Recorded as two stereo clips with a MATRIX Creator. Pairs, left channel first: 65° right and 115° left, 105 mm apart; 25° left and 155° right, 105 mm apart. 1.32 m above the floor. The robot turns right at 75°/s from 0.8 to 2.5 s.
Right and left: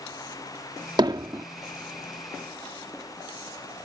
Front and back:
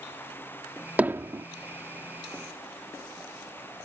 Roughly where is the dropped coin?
I don't hear a dropped coin.